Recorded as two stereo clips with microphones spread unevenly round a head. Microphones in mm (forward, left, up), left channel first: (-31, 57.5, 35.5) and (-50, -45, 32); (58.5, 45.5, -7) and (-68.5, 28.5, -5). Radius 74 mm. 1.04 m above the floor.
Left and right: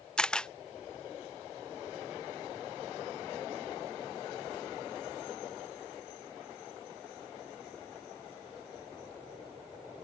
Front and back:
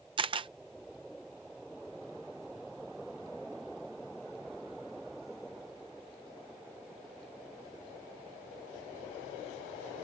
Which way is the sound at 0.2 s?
160° left.